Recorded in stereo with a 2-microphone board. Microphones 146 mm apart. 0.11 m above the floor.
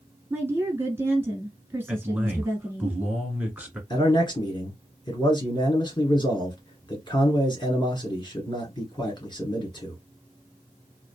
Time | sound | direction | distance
0.3 | a woman speaking | 15° right (ahead or behind) | 1.2 m
1.9 | a man speaking | 10° right (ahead or behind) | 1.2 m
3.9 | a man speaking | 30° left (ahead or behind) | 1.5 m